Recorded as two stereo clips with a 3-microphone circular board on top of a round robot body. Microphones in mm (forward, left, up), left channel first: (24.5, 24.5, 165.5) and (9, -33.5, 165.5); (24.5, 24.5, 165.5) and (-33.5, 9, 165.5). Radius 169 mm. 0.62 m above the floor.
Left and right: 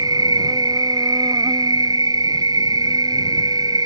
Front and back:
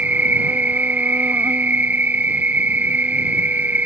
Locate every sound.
0.0 s an insect: 100° right